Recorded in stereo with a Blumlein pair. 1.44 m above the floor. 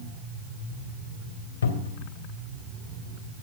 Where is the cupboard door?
65° left, 3 m.